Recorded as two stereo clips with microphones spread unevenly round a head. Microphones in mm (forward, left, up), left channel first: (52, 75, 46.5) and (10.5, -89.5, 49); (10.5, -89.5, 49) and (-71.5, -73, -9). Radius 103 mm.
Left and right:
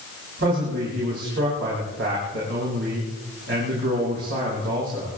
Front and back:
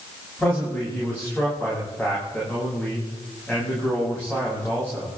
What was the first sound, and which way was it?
A man speaking, 90° right.